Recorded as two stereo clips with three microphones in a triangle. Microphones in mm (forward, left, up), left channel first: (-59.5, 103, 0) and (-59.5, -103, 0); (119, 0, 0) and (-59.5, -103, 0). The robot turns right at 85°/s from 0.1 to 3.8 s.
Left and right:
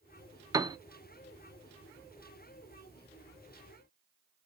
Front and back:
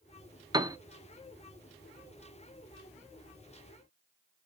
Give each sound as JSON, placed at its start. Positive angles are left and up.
{"t": 0.5, "sound": "a piano", "azimuth_deg": -130, "distance_m": 0.5}